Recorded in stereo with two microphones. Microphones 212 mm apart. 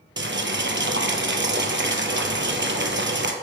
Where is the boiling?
60° right (ahead or behind), 0.7 m.